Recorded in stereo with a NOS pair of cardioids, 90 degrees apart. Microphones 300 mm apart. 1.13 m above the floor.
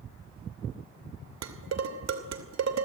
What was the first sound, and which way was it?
Dishes clattering, 60° right.